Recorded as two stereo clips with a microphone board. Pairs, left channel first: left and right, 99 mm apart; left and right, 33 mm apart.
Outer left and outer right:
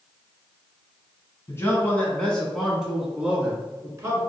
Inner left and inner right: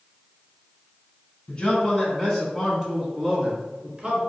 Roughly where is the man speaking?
Left.